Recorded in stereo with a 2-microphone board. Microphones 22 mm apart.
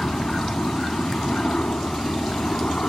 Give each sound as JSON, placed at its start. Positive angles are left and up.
{"t": 0.0, "sound": "a helicopter", "side_deg": 70}